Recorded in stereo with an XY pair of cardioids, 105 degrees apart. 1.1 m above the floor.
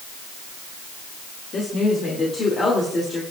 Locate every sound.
1.5 s a woman speaking: 45° left, 2.5 m; by 3.2 s 30° left, 3.5 m